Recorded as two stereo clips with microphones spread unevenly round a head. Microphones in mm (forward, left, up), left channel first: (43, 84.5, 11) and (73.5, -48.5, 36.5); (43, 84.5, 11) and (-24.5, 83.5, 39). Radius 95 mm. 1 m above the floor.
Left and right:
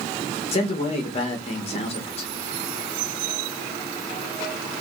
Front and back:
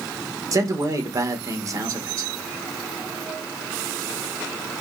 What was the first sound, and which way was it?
A man speaking, 135° left.